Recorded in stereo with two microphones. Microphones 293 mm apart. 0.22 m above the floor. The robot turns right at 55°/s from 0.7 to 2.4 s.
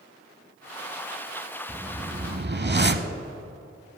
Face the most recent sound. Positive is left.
turn(degrees=-135)